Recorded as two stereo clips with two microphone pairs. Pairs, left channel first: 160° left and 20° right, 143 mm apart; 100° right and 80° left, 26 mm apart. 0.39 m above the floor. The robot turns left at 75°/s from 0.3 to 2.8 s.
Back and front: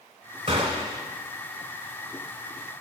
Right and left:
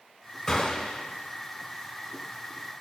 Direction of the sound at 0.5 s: 35° right.